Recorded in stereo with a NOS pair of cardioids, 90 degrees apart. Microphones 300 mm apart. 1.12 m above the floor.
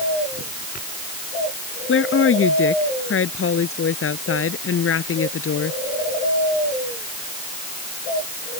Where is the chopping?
No chopping in this recording.